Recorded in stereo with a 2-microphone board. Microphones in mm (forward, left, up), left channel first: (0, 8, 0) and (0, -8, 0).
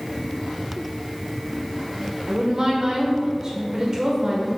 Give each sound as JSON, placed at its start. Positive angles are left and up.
{"t": 2.3, "sound": "a woman speaking", "side_deg": -35, "distance_m": 1.3}